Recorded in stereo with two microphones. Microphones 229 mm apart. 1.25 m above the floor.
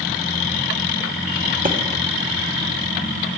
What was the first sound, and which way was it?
A thud, 35° right (ahead or behind).